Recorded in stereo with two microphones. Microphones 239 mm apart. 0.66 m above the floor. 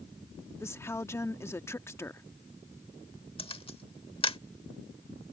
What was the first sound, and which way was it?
A woman speaking, 10° left (ahead or behind).